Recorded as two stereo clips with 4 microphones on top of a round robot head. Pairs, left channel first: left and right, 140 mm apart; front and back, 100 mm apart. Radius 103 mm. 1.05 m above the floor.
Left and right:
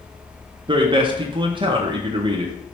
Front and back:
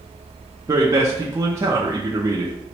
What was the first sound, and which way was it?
A man speaking, 130° right.